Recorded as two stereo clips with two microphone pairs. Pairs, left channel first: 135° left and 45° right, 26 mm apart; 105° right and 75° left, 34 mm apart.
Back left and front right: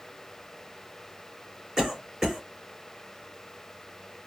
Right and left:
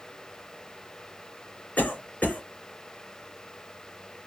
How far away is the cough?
About 3 m.